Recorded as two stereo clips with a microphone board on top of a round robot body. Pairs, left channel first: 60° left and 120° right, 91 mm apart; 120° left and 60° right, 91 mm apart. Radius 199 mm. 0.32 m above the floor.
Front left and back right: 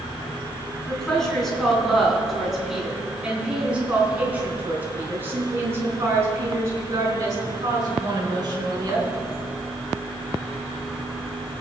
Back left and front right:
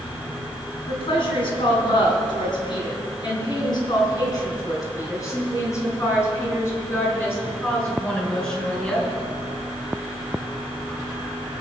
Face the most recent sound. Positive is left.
turn(degrees=-160)